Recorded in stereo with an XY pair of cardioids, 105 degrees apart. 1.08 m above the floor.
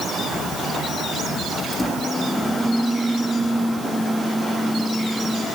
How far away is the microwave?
About 1.7 m.